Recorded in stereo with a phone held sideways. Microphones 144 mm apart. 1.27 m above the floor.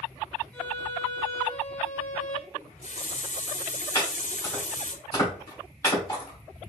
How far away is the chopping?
About 3 m.